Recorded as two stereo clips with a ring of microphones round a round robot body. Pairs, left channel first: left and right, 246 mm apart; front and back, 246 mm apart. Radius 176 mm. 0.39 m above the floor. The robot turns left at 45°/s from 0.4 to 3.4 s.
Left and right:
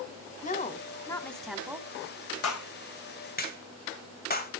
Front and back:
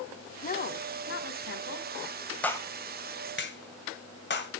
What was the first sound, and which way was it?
A woman speaking, 45° left.